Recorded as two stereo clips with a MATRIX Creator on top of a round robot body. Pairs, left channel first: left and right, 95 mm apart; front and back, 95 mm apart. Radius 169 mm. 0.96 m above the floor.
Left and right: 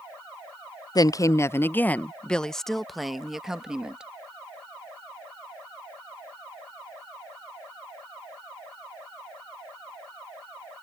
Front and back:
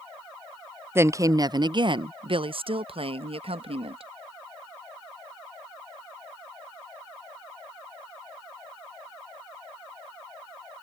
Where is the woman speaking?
120° left; by 4.1 s 170° right.